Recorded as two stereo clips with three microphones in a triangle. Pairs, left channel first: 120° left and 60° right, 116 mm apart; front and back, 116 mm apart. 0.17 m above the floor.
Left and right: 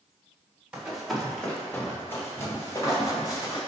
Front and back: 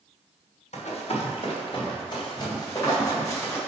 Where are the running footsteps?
20° left, 2.5 m; by 3.6 s 65° left, 4.5 m.